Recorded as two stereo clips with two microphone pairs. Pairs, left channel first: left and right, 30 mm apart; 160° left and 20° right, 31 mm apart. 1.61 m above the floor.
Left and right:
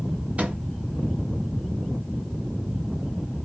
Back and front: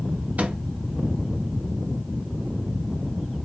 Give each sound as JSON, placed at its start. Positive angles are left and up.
{"t": 0.4, "sound": "a microwave", "azimuth_deg": -50, "distance_m": 0.8}